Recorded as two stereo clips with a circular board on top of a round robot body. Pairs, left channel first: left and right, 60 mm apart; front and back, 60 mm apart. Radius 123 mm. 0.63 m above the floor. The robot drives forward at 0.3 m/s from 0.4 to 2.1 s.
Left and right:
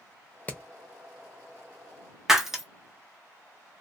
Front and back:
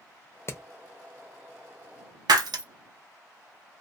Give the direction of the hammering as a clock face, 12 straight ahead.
11 o'clock.